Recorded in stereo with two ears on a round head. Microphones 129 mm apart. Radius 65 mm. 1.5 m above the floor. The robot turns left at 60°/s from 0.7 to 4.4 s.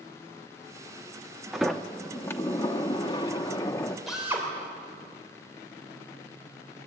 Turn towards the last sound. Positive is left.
turn(degrees=-20)  # may be behind; listen again after turning